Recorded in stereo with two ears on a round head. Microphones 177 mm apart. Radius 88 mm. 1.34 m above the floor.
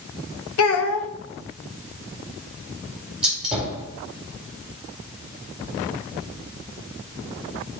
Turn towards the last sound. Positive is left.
turn(degrees=-5)  # may be behind; listen again after turning